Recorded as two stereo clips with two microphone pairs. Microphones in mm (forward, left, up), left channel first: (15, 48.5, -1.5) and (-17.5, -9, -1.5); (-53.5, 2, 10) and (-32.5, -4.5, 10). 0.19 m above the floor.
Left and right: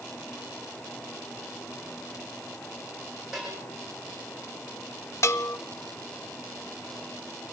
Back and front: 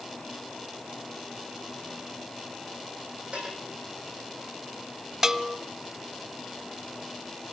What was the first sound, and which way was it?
A bell, 35° right.